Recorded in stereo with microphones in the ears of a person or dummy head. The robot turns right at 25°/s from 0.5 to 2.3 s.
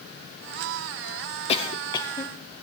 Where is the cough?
30° left (ahead or behind), 0.8 m; by 2.3 s 10° left (ahead or behind), 0.8 m.